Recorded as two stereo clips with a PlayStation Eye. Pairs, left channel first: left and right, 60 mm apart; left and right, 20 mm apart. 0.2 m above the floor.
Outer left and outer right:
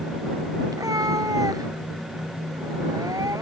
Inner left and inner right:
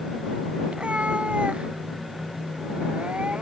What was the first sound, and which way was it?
A cat meowing, 85° right.